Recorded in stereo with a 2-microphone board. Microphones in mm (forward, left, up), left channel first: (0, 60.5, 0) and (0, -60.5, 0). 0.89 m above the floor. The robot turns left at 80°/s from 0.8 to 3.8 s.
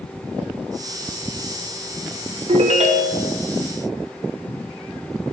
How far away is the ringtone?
About 0.8 m.